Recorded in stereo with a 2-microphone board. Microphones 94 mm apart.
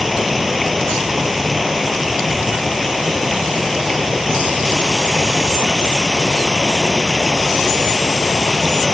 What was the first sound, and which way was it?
Running water, centre (ahead or behind).